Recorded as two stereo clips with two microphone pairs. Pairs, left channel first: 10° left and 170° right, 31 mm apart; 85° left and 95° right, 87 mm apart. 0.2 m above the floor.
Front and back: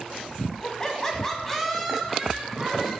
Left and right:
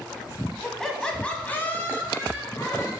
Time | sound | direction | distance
0.6 | laughter | 5° right | 1.3 m